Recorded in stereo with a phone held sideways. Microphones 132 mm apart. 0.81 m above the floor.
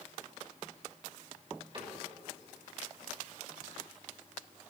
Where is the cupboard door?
40° right (ahead or behind), 3 m.